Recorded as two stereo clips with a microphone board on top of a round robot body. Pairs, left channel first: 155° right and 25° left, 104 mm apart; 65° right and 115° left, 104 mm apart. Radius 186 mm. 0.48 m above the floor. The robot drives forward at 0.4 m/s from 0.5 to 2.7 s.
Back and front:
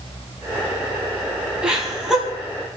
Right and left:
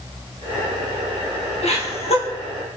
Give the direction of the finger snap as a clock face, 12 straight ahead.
No finger snap in this recording.